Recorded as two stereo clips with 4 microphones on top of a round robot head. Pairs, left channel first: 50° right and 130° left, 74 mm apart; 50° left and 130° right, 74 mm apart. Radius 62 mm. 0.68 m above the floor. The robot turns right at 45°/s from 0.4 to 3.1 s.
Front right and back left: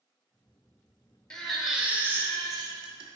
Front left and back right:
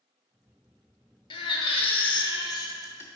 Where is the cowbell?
I don't hear a cowbell.